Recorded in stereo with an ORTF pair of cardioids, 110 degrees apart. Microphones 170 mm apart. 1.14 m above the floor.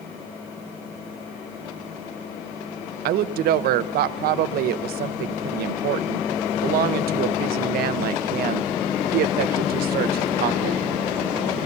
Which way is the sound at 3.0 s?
70° right.